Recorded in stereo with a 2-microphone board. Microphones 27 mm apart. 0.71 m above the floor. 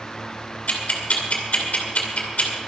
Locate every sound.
0.7 s ticking: 65° left (ahead or behind), 2.5 m